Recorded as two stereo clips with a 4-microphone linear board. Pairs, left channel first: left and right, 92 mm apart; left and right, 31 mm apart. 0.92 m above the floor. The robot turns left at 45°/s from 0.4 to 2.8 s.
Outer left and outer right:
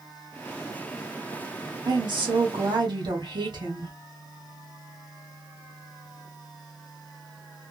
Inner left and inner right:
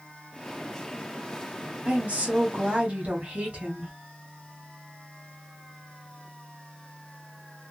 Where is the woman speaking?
70° right, 1.4 m; by 3.9 s 110° right, 1.4 m.